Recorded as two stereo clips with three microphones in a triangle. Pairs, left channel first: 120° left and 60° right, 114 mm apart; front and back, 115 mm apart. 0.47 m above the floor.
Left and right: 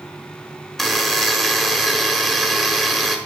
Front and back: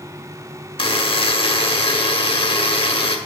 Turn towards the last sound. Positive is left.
turn(degrees=35)